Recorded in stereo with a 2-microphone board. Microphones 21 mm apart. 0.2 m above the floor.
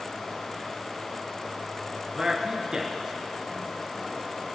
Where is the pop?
I don't hear a pop.